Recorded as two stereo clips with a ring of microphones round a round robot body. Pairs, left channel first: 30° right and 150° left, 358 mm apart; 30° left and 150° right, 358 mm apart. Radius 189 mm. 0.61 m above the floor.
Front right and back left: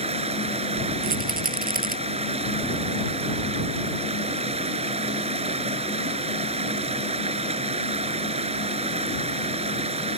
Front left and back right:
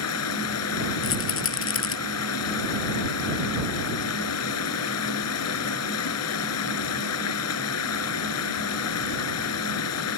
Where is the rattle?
85° left.